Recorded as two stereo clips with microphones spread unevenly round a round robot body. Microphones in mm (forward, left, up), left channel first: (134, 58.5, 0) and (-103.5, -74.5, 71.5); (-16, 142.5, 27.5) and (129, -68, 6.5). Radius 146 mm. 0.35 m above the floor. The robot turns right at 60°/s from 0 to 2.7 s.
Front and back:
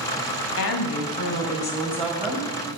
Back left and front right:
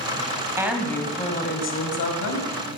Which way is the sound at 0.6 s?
20° left.